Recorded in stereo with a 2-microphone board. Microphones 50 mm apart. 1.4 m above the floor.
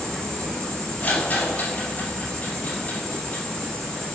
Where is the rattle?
30° left (ahead or behind), 6 m.